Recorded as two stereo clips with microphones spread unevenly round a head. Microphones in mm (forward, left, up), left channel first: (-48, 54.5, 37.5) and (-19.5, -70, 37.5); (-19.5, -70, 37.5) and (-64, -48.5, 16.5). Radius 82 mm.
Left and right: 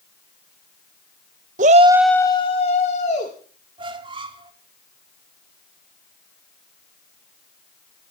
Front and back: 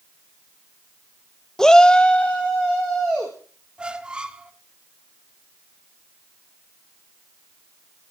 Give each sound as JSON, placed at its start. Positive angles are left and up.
{"t": 1.6, "sound": "a shout", "azimuth_deg": -80, "distance_m": 0.7}
{"t": 3.8, "sound": "a squeak", "azimuth_deg": -115, "distance_m": 1.6}